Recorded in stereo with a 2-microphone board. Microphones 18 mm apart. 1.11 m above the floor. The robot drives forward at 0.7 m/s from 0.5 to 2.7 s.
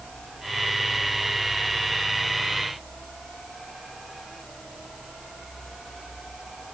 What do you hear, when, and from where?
Only background noise.